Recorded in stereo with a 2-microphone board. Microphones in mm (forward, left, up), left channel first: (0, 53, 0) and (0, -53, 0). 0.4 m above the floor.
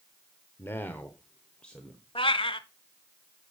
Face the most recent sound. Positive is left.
turn(degrees=55)  # may be behind; listen again after turning